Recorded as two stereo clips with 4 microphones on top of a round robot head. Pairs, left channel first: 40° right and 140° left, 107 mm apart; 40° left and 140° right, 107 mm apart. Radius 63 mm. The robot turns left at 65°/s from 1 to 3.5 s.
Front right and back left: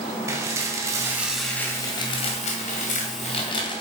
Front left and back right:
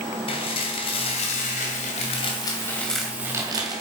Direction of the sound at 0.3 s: 80° left.